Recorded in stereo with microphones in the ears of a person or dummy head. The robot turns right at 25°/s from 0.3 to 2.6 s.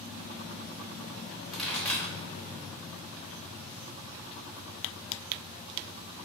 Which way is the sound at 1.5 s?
5° left (ahead or behind).